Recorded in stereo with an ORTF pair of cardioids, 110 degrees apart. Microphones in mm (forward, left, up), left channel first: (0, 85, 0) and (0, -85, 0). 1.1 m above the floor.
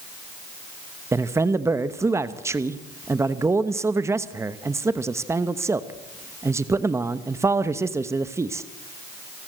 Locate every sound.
1.1 s a man speaking: 15° right, 1.0 m